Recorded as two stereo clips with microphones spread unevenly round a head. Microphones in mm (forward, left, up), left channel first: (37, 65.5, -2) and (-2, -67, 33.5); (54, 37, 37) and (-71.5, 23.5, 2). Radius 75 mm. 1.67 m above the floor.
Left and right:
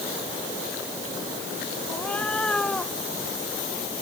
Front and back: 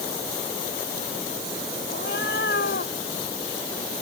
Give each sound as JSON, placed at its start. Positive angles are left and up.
{"t": 1.9, "sound": "a cat meowing", "azimuth_deg": -10}